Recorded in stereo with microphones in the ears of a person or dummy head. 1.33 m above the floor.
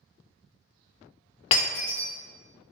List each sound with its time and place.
1.5 s breaking glass: 35° left (ahead or behind), 0.5 m